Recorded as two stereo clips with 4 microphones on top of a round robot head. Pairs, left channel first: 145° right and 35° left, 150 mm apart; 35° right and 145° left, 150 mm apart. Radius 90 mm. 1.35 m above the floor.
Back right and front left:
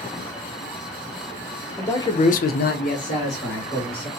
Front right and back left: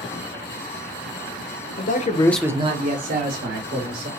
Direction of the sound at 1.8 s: 65° right.